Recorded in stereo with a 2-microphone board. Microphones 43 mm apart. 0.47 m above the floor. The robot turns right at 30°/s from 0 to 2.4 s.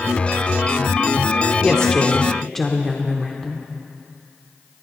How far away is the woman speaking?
About 0.9 m.